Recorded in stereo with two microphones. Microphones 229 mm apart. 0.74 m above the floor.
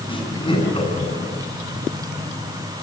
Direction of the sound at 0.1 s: 20° left (ahead or behind).